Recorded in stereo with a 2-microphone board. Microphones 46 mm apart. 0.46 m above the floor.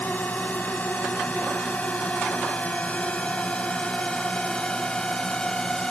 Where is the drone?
35° left (ahead or behind); by 5.9 s 15° left (ahead or behind).